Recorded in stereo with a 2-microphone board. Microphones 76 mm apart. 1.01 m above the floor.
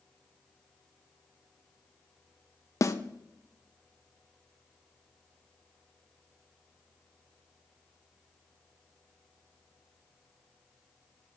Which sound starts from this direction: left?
A snare drum, at 2.8 s.